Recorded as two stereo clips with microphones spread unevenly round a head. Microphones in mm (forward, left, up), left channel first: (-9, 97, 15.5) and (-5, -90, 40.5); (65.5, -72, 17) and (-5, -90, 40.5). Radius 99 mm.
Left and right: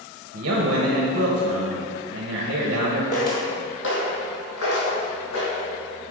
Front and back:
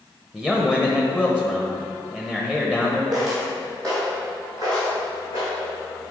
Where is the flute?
No flute in this recording.